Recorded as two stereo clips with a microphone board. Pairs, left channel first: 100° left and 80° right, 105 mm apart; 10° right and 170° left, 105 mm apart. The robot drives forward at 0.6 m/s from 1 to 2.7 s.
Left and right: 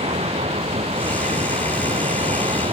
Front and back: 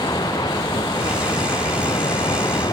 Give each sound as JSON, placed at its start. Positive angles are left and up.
{"t": 0.0, "sound": "running water", "azimuth_deg": -60}